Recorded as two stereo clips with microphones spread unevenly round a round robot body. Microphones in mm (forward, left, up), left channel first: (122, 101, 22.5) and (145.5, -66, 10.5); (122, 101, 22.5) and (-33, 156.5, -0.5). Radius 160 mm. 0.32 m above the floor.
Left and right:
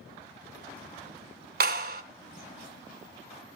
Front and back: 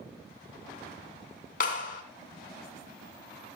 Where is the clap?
75° right, 1.7 m.